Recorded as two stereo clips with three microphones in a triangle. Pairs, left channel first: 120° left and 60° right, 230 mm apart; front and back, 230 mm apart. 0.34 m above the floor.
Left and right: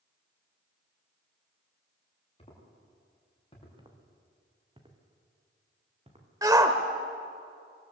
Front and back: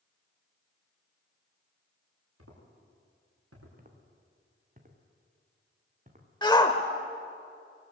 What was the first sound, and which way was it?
Footsteps, 175° right.